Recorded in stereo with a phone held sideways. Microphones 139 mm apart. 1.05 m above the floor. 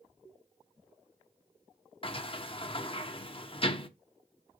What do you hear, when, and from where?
2.0 s a sliding door: 40° left (ahead or behind), 0.7 m